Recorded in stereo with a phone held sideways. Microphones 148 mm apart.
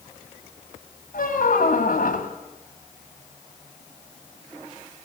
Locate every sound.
1.1 s a squeak: 70° left (ahead or behind), 2.5 m